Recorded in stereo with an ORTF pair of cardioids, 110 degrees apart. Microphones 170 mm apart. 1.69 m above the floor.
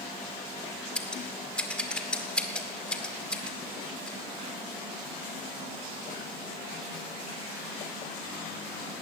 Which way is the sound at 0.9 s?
5° left.